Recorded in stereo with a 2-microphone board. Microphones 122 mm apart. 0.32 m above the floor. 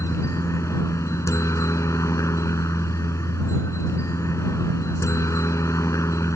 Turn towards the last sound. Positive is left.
turn(degrees=25)  # may be behind; listen again after turning